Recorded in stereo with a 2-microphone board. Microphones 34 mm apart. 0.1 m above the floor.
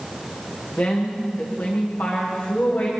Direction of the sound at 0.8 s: 70° left (ahead or behind).